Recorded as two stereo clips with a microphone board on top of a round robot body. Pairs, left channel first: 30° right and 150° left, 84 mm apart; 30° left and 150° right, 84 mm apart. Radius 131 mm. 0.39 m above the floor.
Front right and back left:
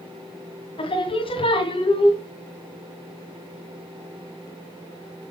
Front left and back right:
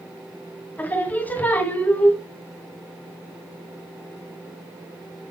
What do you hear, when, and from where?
0.8 s singing: 40° right, 2.5 m